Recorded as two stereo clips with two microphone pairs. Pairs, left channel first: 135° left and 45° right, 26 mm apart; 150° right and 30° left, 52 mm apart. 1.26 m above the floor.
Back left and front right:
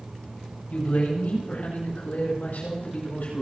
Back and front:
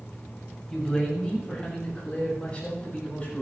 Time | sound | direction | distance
0.7 | a man speaking | 135° left | 6.5 m